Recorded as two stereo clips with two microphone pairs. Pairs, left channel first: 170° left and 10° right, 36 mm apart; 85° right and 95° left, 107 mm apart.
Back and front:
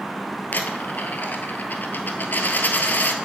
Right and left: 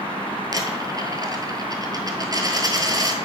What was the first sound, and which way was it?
A dropped coin, 145° left.